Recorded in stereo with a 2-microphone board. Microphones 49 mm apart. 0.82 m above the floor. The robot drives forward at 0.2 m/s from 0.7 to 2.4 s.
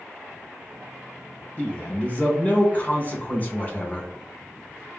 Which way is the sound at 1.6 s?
25° left (ahead or behind).